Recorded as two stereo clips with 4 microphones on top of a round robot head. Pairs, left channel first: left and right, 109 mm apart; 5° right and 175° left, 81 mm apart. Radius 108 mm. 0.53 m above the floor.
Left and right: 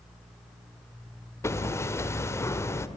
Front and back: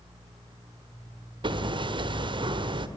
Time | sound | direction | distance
1.4 | hammering | 155° left | 1.5 m